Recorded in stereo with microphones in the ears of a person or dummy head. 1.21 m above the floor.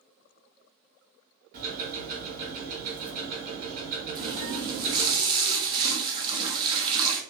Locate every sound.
1.5 s ticking: 40° right (ahead or behind), 1.3 m
4.2 s a running tap: 25° right (ahead or behind), 0.5 m